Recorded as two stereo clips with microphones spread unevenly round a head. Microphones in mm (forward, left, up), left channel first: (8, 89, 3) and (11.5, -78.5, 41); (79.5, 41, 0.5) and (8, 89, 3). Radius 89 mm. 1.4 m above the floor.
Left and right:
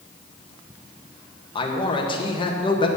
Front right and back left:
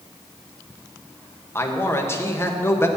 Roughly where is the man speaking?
Ahead left.